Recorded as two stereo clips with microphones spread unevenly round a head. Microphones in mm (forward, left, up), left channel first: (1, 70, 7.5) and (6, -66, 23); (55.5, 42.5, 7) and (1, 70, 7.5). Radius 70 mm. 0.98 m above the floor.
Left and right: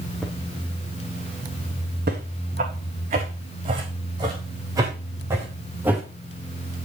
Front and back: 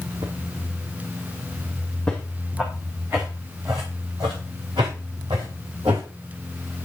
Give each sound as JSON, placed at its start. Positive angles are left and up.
{"t": 0.2, "sound": "footsteps", "azimuth_deg": 180, "distance_m": 2.5}
{"t": 2.1, "sound": "footsteps", "azimuth_deg": -110, "distance_m": 3.5}